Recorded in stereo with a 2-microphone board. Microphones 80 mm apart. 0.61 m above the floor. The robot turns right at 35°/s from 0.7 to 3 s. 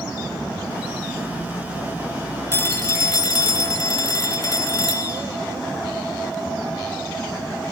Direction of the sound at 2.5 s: 35° left (ahead or behind).